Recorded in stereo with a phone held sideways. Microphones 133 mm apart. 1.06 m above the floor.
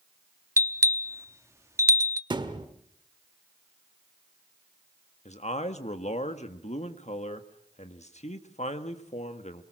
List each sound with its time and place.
0.6 s a bell: 20° right (ahead or behind), 0.8 m
2.3 s a thud: 40° right (ahead or behind), 1.3 m
5.2 s a man speaking: 65° left (ahead or behind), 1.5 m